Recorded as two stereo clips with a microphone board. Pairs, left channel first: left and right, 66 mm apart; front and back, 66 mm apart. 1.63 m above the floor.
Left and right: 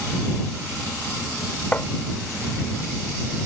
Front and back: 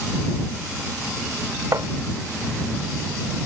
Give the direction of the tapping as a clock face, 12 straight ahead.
7 o'clock.